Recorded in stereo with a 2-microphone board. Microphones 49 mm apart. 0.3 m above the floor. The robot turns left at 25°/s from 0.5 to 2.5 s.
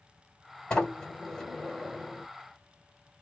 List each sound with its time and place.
0.7 s a sliding door: 35° left, 1.3 m; by 2.3 s 5° right, 1.3 m